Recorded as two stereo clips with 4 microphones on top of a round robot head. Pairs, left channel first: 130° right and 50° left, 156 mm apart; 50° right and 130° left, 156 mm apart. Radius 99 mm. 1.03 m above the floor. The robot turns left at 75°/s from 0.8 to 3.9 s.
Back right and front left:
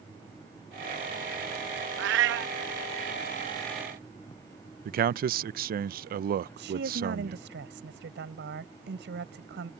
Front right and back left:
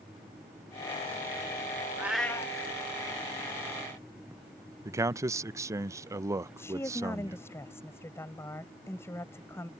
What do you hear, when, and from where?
2.0 s a cat meowing: 55° left; by 2.5 s 15° left
4.8 s a man speaking: 60° left
6.6 s a woman speaking: 30° left